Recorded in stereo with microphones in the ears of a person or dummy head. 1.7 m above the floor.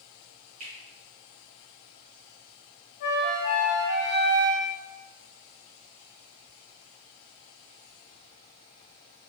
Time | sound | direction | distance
0.6 | a finger snap | 40° right (ahead or behind) | 2.0 m
3.0 | a flute | 55° left (ahead or behind) | 1.6 m